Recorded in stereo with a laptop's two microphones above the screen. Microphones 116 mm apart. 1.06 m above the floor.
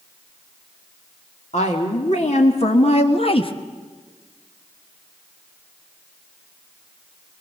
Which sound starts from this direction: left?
A woman speaking, at 1.5 s.